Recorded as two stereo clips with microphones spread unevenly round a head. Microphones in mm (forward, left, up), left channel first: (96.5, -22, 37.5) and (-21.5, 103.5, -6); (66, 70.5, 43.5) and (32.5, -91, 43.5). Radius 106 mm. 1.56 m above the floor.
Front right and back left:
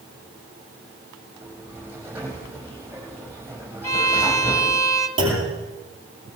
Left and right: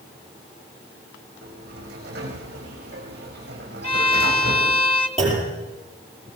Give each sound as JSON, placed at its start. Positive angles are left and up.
{"t": 1.4, "sound": "a sliding door", "azimuth_deg": -145, "distance_m": 5.0}
{"t": 3.8, "sound": "a violin", "azimuth_deg": 20, "distance_m": 1.8}
{"t": 5.2, "sound": "a clunk", "azimuth_deg": 165, "distance_m": 10.0}